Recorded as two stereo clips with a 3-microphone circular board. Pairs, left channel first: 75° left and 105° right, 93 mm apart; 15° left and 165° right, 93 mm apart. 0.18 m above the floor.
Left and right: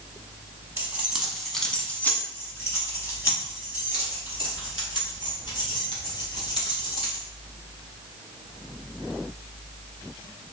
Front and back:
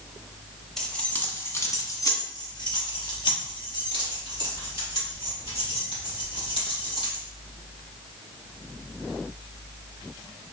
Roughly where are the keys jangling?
Ahead right.